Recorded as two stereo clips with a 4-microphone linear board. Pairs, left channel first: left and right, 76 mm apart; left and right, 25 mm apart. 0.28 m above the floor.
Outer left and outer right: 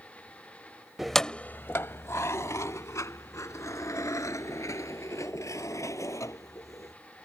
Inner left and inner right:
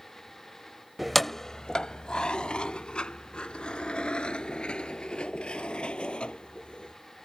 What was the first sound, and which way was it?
Keys jangling, 5° right (ahead or behind).